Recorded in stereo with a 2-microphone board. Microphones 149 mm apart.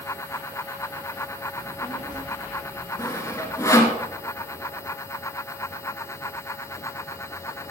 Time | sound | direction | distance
1.6 | a child speaking | 20° right (ahead or behind) | 4 m
3.0 | sawing | 20° left (ahead or behind) | 1.6 m